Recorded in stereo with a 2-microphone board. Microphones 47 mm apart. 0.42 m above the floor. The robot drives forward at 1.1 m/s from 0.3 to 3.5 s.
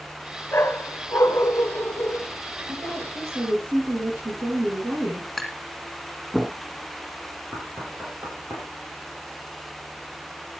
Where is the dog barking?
55° left (ahead or behind), 1.9 m; by 2.3 s 60° left (ahead or behind), 1.8 m.